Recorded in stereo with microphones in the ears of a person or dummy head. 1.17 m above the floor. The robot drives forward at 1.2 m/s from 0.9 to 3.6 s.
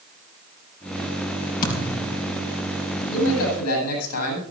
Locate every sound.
1.6 s a thud: 45° left (ahead or behind), 4 m; by 2.2 s 55° left (ahead or behind), 3.5 m
3.1 s a man speaking: 75° left (ahead or behind), 9.5 m; by 4.4 s 80° left, 9.5 m